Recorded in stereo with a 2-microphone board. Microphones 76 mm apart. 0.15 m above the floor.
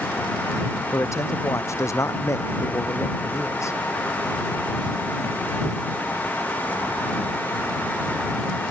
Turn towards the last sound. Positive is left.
turn(degrees=40)  # may be behind; listen again after turning